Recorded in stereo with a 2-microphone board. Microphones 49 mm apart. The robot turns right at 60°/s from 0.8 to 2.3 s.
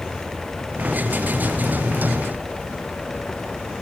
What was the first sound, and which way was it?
Only background noise.